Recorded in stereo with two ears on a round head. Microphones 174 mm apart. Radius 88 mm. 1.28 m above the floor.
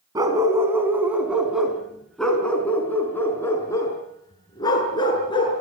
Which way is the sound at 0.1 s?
20° right (ahead or behind).